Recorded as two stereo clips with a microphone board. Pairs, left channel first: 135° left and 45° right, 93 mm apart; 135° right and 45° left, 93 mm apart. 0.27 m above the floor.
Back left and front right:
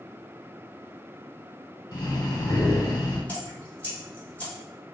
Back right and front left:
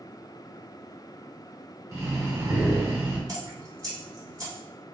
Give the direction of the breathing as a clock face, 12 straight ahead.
9 o'clock.